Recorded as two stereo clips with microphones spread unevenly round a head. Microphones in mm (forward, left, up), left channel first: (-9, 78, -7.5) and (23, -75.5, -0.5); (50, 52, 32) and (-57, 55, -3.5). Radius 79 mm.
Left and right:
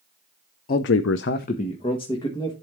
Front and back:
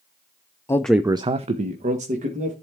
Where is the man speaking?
65° left, 0.7 m; by 2.5 s 170° left, 2 m.